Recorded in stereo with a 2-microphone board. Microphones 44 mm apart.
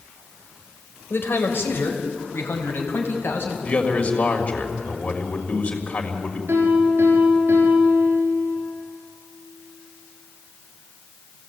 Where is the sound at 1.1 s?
60° left (ahead or behind), 3 m; by 3.5 s 65° left (ahead or behind), 5 m.